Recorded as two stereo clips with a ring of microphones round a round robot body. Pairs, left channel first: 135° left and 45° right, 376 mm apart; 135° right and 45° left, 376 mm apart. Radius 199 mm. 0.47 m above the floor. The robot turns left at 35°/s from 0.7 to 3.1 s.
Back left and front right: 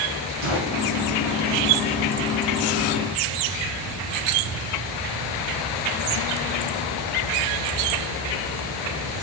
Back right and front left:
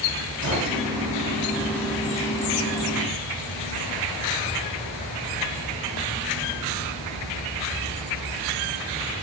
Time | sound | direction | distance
0.4 | a gunshot | 35° right | 1.7 m